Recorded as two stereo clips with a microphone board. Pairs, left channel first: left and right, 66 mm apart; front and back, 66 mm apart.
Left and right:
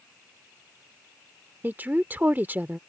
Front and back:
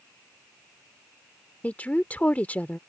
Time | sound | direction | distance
1.6 | a woman speaking | 50° right | ?